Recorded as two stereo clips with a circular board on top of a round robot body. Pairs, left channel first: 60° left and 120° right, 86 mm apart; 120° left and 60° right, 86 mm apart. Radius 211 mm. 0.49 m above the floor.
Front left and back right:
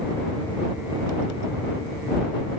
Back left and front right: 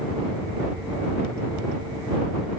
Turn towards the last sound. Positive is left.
No sound to turn to.